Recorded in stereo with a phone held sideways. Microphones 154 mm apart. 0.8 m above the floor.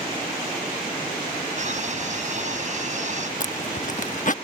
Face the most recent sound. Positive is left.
turn(degrees=55)  # may be behind; listen again after turning